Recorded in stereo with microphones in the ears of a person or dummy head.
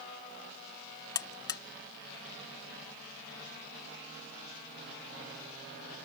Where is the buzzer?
25° left (ahead or behind).